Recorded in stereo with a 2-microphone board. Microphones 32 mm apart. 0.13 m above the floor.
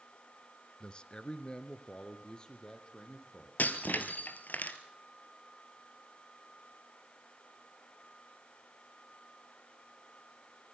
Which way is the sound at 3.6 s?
65° left (ahead or behind).